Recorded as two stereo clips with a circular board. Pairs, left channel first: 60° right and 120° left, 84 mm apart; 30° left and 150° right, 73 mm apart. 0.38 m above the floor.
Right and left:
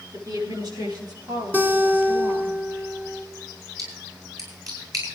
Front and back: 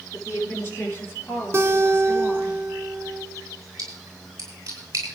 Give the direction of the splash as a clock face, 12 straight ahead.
7 o'clock.